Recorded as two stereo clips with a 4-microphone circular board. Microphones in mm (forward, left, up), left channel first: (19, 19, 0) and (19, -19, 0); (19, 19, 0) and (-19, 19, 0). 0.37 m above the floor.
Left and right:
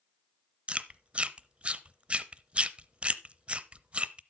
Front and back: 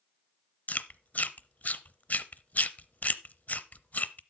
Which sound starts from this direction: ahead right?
Chewing, at 0.7 s.